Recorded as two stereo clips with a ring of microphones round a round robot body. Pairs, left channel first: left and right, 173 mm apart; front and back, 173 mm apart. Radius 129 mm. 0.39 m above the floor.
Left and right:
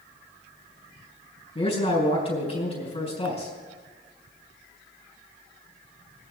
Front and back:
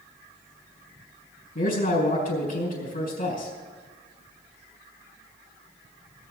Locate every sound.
1.6 s a man speaking: 35° left, 4 m